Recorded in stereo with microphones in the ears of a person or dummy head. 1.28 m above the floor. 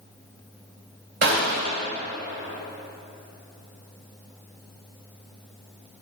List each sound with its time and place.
1.2 s a gunshot: 60° right (ahead or behind), 2 m